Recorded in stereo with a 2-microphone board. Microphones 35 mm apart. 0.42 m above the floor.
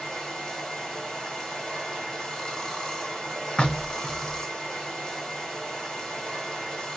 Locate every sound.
0.0 s running water: 15° left (ahead or behind), 1.7 m
3.6 s knocking: 30° left (ahead or behind), 0.7 m